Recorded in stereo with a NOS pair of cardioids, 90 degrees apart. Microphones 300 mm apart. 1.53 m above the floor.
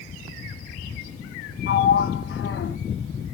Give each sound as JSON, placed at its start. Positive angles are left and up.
{"t": 1.7, "sound": "a sliding door", "azimuth_deg": 40, "distance_m": 0.9}